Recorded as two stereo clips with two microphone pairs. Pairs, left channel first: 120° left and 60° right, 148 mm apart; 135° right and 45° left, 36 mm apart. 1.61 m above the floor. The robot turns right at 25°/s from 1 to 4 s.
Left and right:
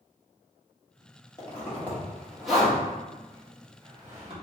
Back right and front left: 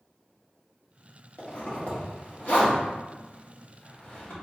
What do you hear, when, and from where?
1.4 s a zipper: 175° right, 1.3 m; by 4.3 s 110° right, 1.3 m